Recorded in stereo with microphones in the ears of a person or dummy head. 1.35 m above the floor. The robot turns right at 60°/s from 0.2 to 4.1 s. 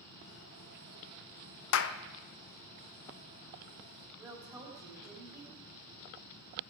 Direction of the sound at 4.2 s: 20° right (ahead or behind).